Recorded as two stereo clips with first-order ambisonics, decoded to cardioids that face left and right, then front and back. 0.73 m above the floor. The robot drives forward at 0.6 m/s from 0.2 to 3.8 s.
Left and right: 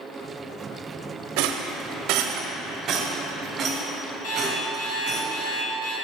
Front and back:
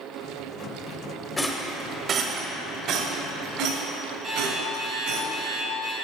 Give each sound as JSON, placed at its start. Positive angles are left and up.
{"t": 1.4, "sound": "a rattle", "azimuth_deg": -80, "distance_m": 0.6}
{"t": 4.2, "sound": "an alarm clock", "azimuth_deg": 115, "distance_m": 2.5}